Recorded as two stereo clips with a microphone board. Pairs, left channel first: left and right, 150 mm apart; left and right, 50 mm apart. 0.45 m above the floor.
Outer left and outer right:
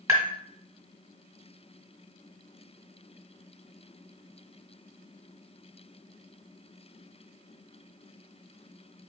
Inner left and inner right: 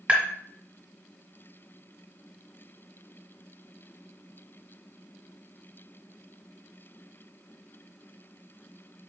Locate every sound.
0.1 s tapping: 25° right (ahead or behind), 1.6 m